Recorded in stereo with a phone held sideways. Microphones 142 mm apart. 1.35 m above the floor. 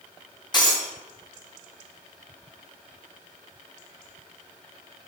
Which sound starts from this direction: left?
Breaking glass, at 0.5 s.